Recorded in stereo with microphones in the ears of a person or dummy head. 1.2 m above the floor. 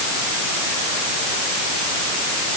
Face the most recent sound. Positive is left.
No sound to turn to.